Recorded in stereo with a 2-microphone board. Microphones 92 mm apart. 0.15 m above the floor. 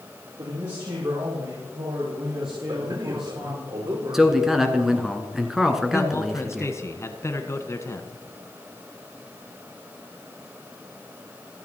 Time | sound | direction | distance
0.4 | a man speaking | 55° right (ahead or behind) | 5 m
2.7 | a man speaking | 60° right (ahead or behind) | 7 m
4.1 | a man speaking | 5° right (ahead or behind) | 1.6 m
5.9 | a man speaking | 30° left (ahead or behind) | 1.3 m